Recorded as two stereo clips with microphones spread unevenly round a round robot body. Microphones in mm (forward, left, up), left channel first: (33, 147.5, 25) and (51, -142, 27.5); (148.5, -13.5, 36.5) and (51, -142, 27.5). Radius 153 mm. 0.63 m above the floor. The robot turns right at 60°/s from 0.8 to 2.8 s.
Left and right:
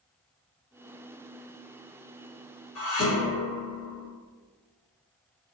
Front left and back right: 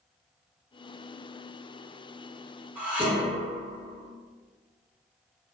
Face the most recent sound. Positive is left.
turn(degrees=140)